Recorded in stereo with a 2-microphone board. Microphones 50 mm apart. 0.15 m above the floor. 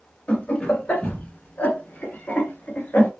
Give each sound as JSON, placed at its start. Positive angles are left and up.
{"t": 0.3, "sound": "laughter", "side_deg": 30, "distance_m": 1.5}